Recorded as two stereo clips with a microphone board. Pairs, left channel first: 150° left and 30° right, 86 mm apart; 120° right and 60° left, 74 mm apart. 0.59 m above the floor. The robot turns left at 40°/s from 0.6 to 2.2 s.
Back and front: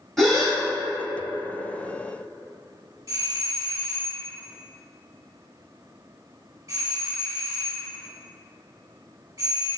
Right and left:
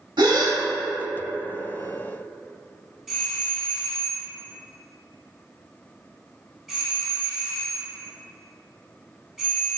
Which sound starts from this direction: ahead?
A doorbell, at 3.1 s.